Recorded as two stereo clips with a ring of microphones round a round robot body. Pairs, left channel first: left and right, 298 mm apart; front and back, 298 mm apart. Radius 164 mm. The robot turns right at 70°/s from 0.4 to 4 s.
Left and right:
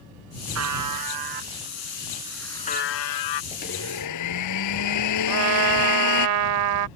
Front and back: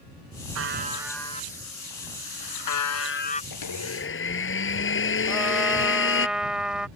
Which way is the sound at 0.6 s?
130° right.